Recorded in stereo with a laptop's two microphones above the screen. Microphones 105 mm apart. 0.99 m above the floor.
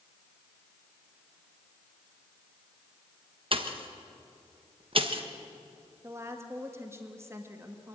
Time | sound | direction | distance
3.5 | a pop | 50° right (ahead or behind) | 1.2 m
6.0 | a woman speaking | 25° right (ahead or behind) | 1.5 m